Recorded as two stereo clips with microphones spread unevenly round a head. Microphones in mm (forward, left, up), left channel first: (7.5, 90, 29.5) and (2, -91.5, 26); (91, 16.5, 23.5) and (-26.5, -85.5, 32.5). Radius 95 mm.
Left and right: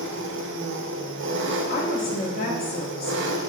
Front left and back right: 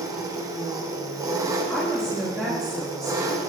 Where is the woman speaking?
130° left, 2.0 m.